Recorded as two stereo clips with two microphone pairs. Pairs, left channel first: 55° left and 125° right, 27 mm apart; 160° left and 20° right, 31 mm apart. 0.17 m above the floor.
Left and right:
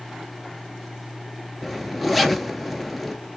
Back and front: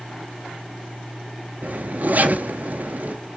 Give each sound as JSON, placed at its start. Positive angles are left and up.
{"t": 1.6, "sound": "a zipper", "azimuth_deg": -40, "distance_m": 0.7}